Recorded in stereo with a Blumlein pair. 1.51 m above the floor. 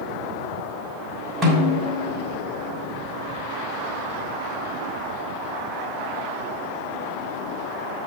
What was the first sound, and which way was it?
A snare drum, 15° right.